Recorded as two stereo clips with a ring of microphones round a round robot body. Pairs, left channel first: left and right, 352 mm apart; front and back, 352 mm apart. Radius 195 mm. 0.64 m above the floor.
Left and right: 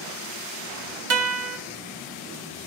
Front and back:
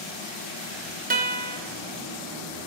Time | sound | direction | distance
1.1 | a guitar | 120° right | 0.7 m